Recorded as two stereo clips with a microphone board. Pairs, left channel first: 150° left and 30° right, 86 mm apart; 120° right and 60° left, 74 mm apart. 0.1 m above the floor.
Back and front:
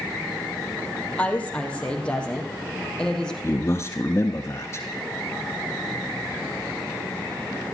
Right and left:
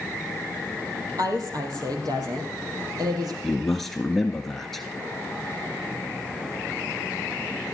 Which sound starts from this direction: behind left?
A man speaking, at 3.4 s.